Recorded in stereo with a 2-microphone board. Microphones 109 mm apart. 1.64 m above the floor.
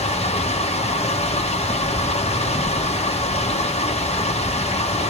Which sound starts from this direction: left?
Running water, at 0.0 s.